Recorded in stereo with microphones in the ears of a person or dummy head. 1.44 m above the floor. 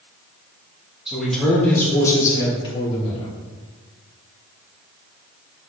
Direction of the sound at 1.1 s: Centre (ahead or behind).